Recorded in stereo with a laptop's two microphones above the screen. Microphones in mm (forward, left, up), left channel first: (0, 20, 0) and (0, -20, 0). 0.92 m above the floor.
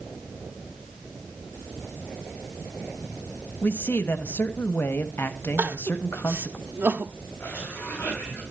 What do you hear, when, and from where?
3.6 s a man speaking: 60° left (ahead or behind), 1.1 m
5.6 s crying: 60° right (ahead or behind), 1.0 m
7.4 s a cough: 45° left (ahead or behind), 5.5 m